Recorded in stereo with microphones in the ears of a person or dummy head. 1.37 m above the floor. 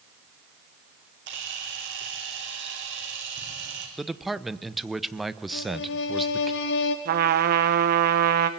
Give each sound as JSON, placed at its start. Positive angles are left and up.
{"t": 1.3, "sound": "a camera shutter", "side_deg": -55, "distance_m": 3.5}
{"t": 4.0, "sound": "a man speaking", "side_deg": 0, "distance_m": 0.9}
{"t": 5.5, "sound": "a violin", "side_deg": 60, "distance_m": 1.3}
{"t": 7.0, "sound": "a trumpet", "side_deg": -50, "distance_m": 1.4}